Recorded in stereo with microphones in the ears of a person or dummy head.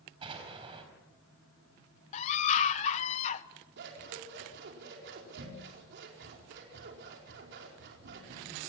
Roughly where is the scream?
Left.